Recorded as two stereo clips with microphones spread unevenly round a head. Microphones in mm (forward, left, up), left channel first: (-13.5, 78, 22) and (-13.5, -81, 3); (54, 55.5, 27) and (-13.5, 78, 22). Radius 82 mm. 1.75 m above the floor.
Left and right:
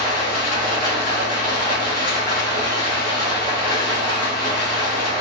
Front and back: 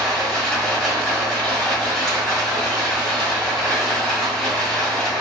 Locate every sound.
0.0 s running water: 55° left, 1.8 m